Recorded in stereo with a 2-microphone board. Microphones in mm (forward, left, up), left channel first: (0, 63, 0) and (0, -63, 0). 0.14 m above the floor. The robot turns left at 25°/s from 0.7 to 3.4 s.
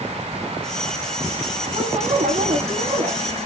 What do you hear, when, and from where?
1.7 s a woman speaking: 90° right, 5 m; by 3.2 s 130° right, 5 m